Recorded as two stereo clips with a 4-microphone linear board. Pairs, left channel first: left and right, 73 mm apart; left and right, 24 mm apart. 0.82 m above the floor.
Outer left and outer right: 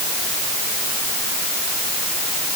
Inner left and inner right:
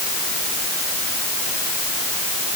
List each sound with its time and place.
Only background noise.